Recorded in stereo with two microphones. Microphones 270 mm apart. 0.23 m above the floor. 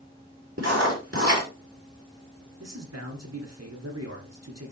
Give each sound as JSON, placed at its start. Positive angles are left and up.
{"t": 0.6, "sound": "writing", "side_deg": -60, "distance_m": 4.5}
{"t": 2.6, "sound": "a man speaking", "side_deg": -65, "distance_m": 3.0}